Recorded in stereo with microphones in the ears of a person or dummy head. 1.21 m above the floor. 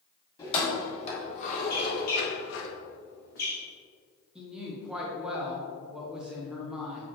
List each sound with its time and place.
0.4 s keys jangling: 30° left (ahead or behind), 2 m; by 2.7 s 80° left, 1.0 m
1.7 s a squeak: 50° left (ahead or behind), 1.4 m
4.3 s a woman speaking: 5° right (ahead or behind), 1.1 m